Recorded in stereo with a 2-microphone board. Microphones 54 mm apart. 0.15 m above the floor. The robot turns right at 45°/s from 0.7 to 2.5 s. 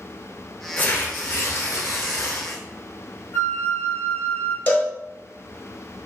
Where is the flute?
50° left (ahead or behind), 1.1 m.